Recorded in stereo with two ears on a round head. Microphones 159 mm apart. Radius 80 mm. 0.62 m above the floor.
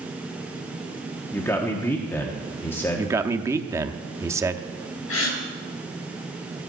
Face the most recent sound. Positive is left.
turn(degrees=85)